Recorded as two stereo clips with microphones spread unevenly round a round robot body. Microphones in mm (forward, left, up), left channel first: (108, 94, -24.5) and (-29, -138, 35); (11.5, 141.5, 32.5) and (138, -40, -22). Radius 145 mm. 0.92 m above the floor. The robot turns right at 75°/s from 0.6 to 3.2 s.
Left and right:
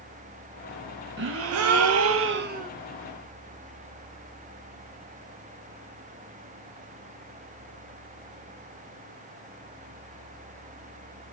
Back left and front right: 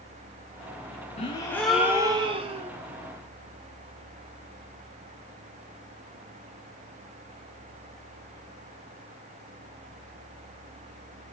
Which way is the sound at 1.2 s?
165° right.